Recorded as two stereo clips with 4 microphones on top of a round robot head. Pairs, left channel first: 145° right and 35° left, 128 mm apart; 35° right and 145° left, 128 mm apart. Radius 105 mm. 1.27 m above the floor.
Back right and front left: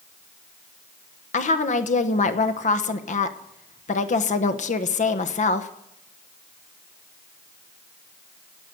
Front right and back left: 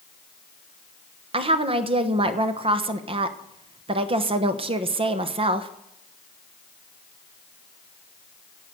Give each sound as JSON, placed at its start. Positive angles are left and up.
{"t": 1.3, "sound": "a woman speaking", "azimuth_deg": -170, "distance_m": 1.1}